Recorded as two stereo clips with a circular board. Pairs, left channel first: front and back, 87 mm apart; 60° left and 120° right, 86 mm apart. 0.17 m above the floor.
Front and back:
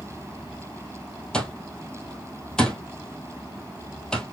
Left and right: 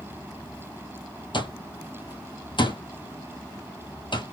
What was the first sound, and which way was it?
An alarm clock, 80° left.